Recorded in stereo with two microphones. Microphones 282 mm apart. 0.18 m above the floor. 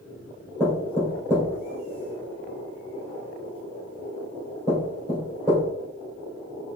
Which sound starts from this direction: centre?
Knocking, at 0.6 s.